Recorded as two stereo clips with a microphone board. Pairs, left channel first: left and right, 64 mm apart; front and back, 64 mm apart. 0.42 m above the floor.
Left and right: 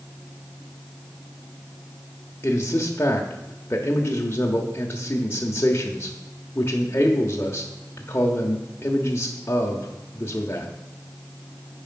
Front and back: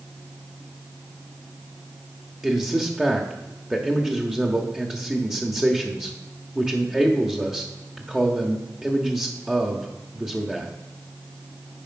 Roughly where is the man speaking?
Left.